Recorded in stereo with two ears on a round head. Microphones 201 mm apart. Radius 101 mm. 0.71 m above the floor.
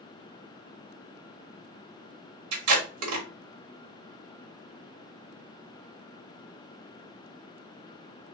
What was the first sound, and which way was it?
Tape being pulled, 75° right (ahead or behind).